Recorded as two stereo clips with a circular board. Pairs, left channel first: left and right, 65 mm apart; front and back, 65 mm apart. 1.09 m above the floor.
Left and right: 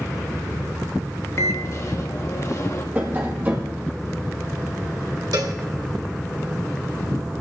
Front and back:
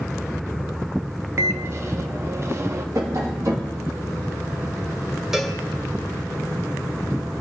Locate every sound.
1.4 s a microwave: 130° left, 1.0 m
3.0 s tapping: 150° right, 2 m
5.3 s a cowbell: 100° right, 2 m